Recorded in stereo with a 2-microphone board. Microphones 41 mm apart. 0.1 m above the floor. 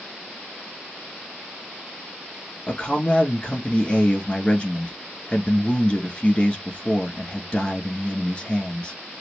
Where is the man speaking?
25° left (ahead or behind), 1.1 m.